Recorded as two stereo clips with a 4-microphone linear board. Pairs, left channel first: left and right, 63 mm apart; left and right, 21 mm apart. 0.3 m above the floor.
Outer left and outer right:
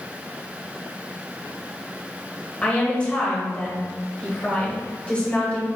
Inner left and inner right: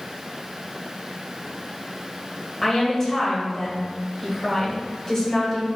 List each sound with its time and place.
2.6 s a woman speaking: 20° left (ahead or behind), 1.3 m